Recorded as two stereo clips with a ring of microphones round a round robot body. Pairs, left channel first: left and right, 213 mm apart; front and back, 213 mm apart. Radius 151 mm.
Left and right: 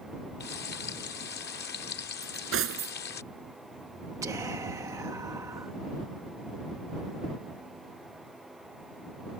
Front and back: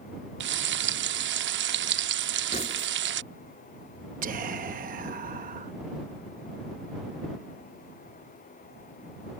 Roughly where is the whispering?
Behind.